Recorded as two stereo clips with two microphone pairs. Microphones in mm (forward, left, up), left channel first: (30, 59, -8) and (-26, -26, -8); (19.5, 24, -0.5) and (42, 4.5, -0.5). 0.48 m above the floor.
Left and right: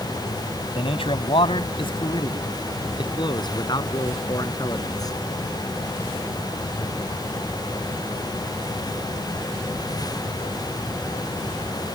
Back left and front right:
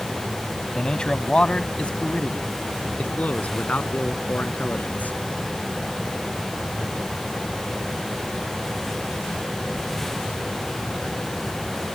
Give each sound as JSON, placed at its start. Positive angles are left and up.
{"t": 0.8, "sound": "a man speaking", "azimuth_deg": 70}